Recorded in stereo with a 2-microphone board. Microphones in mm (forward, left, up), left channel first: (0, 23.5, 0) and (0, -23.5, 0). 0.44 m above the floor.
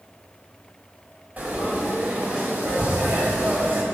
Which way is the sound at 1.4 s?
40° right (ahead or behind).